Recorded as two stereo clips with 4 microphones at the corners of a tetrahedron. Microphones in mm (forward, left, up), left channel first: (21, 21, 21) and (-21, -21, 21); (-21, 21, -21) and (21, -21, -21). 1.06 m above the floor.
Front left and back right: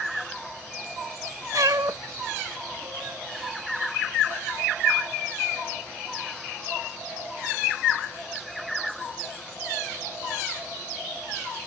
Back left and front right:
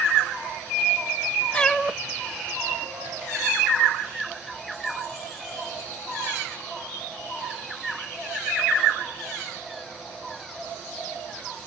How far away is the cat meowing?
About 0.6 m.